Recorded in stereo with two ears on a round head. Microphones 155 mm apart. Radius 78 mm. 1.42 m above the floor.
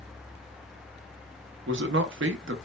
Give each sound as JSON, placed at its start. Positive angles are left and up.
{"t": 1.7, "sound": "a man speaking", "side_deg": -75, "distance_m": 0.6}